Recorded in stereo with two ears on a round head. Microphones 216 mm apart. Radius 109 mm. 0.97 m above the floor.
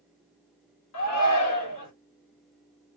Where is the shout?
80° left, 2.5 m.